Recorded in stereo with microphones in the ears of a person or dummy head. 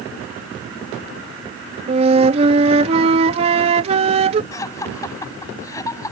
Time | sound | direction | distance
1.9 | a flute | 35° right (ahead or behind) | ?
4.5 | laughter | 20° left (ahead or behind) | ?